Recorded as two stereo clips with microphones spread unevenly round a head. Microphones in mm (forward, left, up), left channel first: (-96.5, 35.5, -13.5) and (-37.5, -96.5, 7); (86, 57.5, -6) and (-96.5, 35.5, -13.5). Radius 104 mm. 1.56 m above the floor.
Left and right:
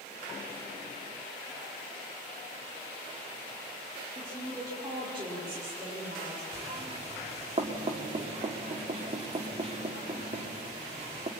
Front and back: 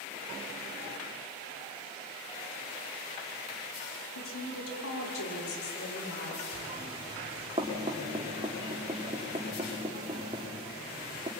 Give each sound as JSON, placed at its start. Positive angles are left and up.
{"t": 4.2, "sound": "a woman speaking", "azimuth_deg": 15, "distance_m": 4.5}
{"t": 6.5, "sound": "knocking", "azimuth_deg": -105, "distance_m": 2.5}